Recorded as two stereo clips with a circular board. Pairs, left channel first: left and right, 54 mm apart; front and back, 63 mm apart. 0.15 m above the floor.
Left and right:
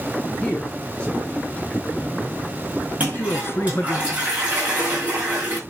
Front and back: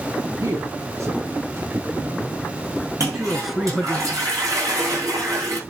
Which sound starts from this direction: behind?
A man speaking, at 0.4 s.